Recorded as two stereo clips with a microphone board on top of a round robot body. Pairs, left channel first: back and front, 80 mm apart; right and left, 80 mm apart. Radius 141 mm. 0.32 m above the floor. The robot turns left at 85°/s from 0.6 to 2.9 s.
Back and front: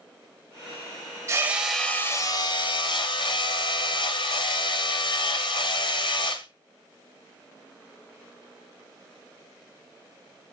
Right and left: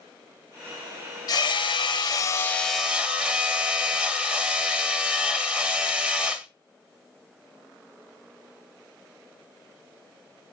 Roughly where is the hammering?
Ahead right.